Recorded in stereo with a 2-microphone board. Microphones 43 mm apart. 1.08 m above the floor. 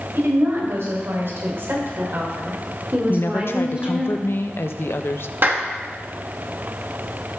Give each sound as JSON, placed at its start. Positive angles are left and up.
{"t": 0.1, "sound": "a woman speaking", "side_deg": -80, "distance_m": 4.5}
{"t": 3.1, "sound": "a woman speaking", "side_deg": 65, "distance_m": 0.8}
{"t": 5.4, "sound": "a clap", "side_deg": -50, "distance_m": 1.4}